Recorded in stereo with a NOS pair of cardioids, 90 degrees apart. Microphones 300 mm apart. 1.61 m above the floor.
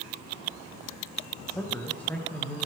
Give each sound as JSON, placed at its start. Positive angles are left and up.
{"t": 1.5, "sound": "a man speaking", "azimuth_deg": 5, "distance_m": 1.9}